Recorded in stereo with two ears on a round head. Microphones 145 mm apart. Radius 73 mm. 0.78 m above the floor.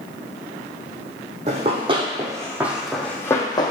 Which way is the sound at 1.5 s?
40° right (ahead or behind).